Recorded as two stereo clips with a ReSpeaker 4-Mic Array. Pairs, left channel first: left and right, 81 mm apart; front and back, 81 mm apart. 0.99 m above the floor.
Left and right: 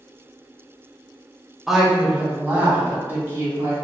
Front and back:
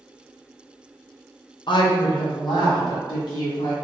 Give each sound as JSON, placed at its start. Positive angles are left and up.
{"t": 1.7, "sound": "a woman speaking", "azimuth_deg": -5, "distance_m": 0.7}